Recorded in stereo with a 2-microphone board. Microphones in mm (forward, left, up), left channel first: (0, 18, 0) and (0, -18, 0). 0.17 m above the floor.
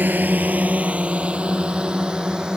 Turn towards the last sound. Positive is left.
turn(degrees=-20)  # may be behind; listen again after turning